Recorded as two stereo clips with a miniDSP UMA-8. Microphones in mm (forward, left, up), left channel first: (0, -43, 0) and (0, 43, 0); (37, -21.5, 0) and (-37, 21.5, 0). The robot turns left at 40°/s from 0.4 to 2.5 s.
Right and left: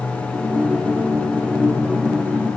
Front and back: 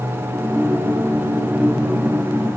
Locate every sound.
Only background noise.